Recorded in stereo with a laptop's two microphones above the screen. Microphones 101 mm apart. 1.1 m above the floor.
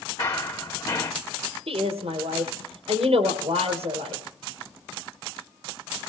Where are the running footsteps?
40° left (ahead or behind), 3.5 m.